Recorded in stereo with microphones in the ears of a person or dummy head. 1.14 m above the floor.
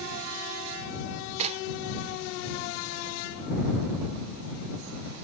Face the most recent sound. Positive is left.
turn(degrees=-40)  # may be behind; listen again after turning